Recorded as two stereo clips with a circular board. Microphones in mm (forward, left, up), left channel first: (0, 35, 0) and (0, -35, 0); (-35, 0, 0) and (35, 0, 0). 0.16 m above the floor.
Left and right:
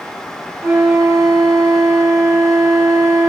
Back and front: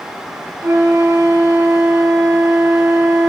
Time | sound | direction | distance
0.6 | a flute | 45° right | 1.3 m